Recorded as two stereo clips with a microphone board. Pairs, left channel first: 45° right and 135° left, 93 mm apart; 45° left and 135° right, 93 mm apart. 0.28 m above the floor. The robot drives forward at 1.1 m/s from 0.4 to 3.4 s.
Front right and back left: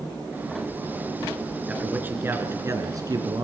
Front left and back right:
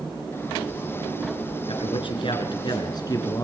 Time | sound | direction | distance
1.7 | a man speaking | 60° left | 3.5 m